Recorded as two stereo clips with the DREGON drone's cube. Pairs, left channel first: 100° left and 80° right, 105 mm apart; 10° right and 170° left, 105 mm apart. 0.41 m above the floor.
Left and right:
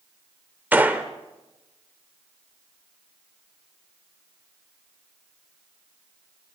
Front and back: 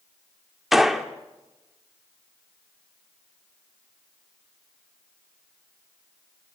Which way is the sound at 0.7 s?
110° right.